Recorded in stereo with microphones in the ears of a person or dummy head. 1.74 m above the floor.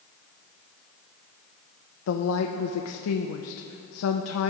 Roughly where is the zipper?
I don't hear a zipper.